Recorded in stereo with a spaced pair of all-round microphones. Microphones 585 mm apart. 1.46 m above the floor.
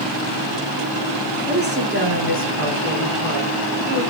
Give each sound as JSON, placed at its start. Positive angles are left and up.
{"t": 1.5, "sound": "a woman speaking", "side_deg": -15, "distance_m": 2.5}